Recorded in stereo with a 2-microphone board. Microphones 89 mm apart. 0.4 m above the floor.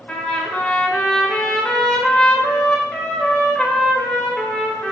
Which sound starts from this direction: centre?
A trumpet, at 0.1 s.